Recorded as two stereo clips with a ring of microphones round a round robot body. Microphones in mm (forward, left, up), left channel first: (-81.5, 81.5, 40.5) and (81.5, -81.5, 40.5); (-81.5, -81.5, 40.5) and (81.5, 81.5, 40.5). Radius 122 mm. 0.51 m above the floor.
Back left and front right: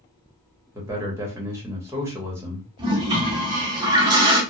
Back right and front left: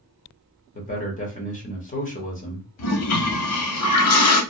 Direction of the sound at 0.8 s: 115° right.